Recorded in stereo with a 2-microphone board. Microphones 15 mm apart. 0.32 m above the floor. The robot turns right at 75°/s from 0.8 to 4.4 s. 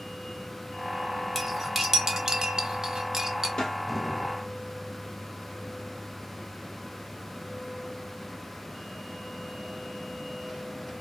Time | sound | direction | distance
1.4 | cutlery clinking | 10° left (ahead or behind) | 0.7 m
3.6 | a snare drum | 55° left (ahead or behind) | 1.5 m